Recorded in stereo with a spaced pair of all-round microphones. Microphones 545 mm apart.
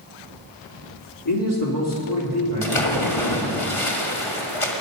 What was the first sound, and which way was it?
A man speaking, 40° left (ahead or behind).